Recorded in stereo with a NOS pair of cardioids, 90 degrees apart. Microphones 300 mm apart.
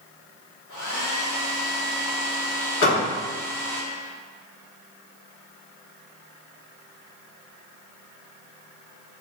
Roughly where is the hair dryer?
Left.